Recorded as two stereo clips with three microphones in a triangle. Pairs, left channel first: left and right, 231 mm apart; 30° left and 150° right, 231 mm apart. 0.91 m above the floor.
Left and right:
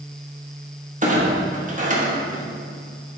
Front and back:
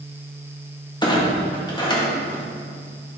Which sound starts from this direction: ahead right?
A clunk, at 1.0 s.